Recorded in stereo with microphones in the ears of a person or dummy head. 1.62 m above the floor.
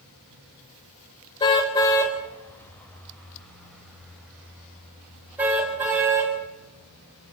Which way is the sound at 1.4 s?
25° left (ahead or behind).